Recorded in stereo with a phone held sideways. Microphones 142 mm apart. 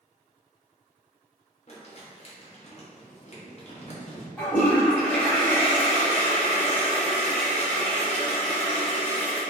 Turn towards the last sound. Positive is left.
turn(degrees=10)  # may be behind; listen again after turning